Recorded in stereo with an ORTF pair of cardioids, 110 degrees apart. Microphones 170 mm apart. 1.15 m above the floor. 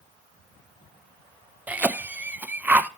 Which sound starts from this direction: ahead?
A cough, at 1.7 s.